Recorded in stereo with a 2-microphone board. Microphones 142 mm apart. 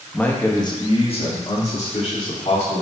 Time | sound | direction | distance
0.1 | a man speaking | 10° left (ahead or behind) | 1.0 m